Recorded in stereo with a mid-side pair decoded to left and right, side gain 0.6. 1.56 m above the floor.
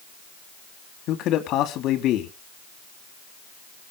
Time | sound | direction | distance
1.1 | a man speaking | 60° left | 3 m